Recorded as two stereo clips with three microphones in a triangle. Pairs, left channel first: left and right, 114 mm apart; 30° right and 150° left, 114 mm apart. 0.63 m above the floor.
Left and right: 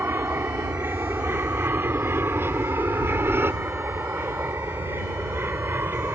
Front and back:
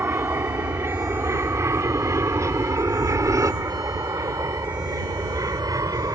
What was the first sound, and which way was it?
An aircraft, 150° right.